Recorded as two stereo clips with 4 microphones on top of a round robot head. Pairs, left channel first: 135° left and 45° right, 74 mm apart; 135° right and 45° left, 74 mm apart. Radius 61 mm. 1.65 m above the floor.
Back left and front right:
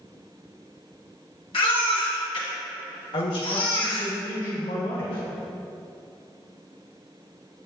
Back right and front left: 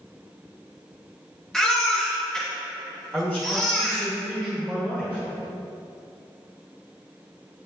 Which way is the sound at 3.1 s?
120° left.